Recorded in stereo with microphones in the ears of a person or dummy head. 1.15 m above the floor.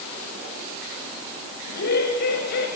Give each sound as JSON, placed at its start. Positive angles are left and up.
{"t": 1.6, "sound": "laughter", "side_deg": 60, "distance_m": 7.0}